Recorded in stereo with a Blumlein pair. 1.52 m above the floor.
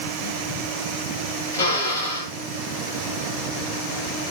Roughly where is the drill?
Ahead left.